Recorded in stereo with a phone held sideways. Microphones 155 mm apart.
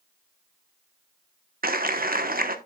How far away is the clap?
About 1.1 m.